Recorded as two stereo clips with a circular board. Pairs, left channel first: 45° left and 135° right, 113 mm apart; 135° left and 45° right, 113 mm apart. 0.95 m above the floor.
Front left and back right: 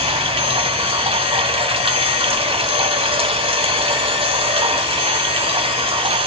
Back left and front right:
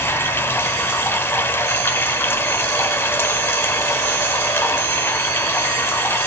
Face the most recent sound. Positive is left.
turn(degrees=-155)